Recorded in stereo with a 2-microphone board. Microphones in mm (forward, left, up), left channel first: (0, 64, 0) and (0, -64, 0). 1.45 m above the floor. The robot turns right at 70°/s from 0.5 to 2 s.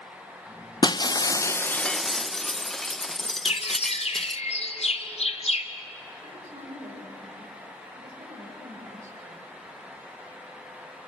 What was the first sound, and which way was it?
Breaking glass, 95° left.